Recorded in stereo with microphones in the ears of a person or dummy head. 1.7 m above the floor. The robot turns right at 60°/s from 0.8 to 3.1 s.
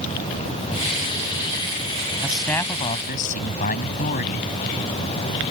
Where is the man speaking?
10° right; by 4.5 s 45° left.